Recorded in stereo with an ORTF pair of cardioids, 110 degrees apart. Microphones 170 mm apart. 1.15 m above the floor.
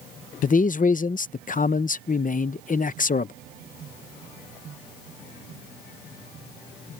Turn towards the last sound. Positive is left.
turn(degrees=50)